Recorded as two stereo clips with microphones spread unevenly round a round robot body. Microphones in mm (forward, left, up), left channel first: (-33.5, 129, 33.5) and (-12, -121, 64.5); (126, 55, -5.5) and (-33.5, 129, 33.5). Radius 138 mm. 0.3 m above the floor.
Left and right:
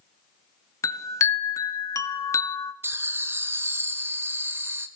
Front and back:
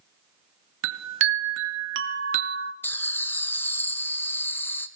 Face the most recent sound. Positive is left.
turn(degrees=0)